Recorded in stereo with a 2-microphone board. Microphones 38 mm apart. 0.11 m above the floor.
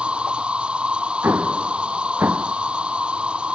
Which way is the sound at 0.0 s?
30° right (ahead or behind).